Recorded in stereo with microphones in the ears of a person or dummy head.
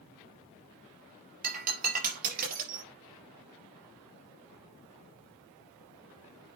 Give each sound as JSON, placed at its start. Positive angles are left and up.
{"t": 1.4, "sound": "breaking glass", "side_deg": -40, "distance_m": 4.5}